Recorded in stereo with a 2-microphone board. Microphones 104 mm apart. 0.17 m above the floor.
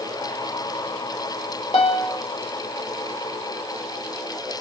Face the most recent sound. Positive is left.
turn(degrees=70)  # may be behind; listen again after turning